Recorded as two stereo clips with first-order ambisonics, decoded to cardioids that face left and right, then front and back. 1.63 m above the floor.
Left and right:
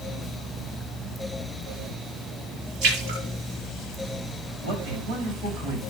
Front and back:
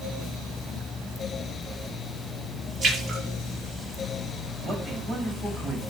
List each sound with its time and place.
2.8 s a splash: 110° right, 6.5 m
4.6 s a man speaking: 110° right, 7 m